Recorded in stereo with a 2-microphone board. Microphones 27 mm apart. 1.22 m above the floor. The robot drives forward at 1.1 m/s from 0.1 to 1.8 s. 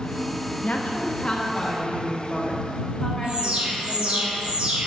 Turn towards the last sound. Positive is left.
turn(degrees=-60)  # may be behind; listen again after turning